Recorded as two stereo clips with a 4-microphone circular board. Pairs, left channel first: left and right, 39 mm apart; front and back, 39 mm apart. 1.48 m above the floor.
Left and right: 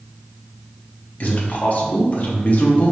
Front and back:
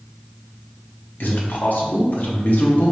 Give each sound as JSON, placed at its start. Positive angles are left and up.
{"t": 1.2, "sound": "a man speaking", "azimuth_deg": 40, "distance_m": 1.0}